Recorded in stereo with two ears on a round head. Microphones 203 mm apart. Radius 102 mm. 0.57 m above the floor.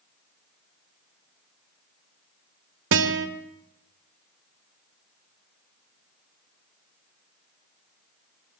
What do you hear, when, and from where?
2.9 s a guitar: 55° right (ahead or behind), 2 m